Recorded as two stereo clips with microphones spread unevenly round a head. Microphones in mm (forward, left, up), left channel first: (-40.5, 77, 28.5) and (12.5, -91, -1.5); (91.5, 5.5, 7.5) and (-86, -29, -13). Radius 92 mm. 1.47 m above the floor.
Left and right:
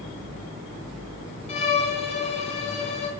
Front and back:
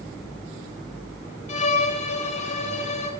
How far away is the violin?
About 1.2 m.